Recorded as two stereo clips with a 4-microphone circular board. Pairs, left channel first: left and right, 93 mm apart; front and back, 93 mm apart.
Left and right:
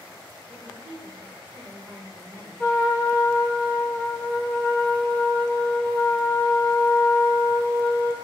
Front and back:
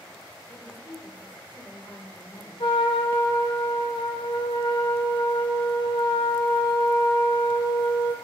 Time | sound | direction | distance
0.5 | a woman speaking | 130° right | 2.0 m
2.6 | a trumpet | 15° left | 0.7 m